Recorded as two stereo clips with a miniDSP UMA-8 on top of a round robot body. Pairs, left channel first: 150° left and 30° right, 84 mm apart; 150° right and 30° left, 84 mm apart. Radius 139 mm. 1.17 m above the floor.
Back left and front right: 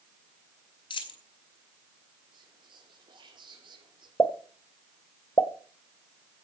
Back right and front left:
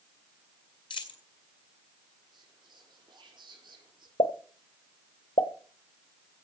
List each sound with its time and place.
0.9 s a dropped coin: straight behind, 2.0 m
2.3 s whispering: straight ahead, 5 m
4.2 s a pop: 145° right, 1.0 m